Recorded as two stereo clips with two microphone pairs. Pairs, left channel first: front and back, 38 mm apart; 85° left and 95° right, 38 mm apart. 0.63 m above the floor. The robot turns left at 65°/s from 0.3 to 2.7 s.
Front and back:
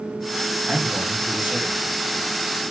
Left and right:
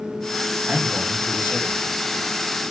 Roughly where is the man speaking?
Right.